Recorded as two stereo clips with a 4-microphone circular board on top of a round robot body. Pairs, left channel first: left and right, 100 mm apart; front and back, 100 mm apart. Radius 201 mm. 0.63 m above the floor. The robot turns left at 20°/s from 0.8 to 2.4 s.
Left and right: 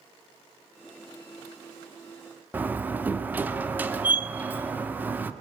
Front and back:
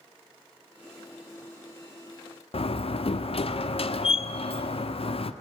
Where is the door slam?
15° right, 1.6 m.